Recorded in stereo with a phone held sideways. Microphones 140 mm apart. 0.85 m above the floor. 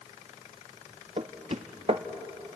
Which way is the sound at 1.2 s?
50° right (ahead or behind).